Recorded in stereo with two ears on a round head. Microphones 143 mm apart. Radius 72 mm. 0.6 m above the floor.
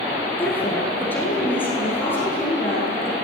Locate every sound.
0.4 s a woman speaking: 10° left (ahead or behind), 7.5 m; by 3.1 s 15° left (ahead or behind), 10.5 m